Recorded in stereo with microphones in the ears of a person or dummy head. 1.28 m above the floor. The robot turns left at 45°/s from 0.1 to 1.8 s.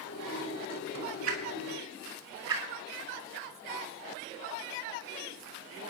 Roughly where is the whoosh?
Right.